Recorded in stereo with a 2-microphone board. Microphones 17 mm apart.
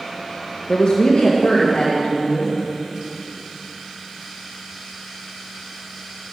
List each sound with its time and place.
0.7 s a woman speaking: 50° left (ahead or behind), 1.0 m; by 2.6 s 75° left (ahead or behind), 2.5 m